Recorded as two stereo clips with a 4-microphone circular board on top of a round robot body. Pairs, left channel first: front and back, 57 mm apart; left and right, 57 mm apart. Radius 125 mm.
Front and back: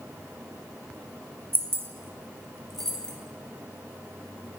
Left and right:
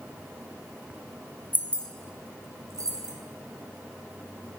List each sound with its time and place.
1.5 s keys jangling: 140° left, 0.6 m; by 3.1 s 75° right, 1.0 m